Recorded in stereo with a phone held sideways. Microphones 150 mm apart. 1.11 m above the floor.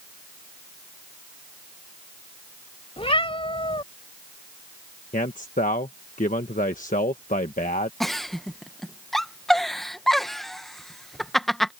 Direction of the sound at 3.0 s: 40° left (ahead or behind).